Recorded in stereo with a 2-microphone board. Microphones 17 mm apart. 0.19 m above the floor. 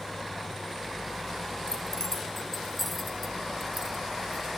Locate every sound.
1.7 s keys jangling: 35° left (ahead or behind), 1.4 m; by 4.5 s 30° right (ahead or behind), 1.3 m